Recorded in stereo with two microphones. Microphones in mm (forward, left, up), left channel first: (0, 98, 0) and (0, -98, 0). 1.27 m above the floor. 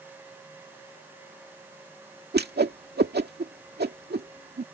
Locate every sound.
2.3 s a whoosh: 55° right (ahead or behind)